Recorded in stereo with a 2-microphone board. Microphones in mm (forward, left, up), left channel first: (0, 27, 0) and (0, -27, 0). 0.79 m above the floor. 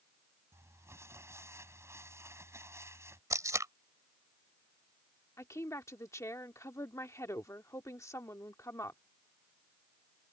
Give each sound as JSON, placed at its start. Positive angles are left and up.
{"t": 0.5, "sound": "crumpling", "side_deg": -60}
{"t": 3.3, "sound": "tape being pulled", "side_deg": -80}
{"t": 5.4, "sound": "a woman speaking", "side_deg": 70}